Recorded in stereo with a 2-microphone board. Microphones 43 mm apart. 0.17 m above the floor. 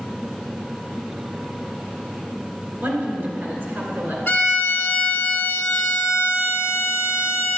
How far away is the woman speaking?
About 2.5 m.